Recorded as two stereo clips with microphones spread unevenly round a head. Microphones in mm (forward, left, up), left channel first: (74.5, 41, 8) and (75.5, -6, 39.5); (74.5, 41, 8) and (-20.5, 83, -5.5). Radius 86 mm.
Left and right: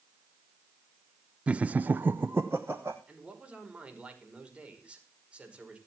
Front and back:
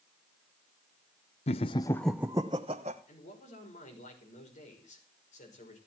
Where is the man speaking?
30° right, 5.5 m.